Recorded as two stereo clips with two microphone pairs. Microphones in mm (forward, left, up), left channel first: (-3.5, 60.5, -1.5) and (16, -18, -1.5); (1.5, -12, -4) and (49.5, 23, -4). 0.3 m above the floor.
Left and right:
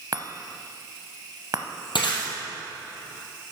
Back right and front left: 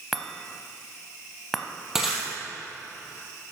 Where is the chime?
55° right, 0.8 m.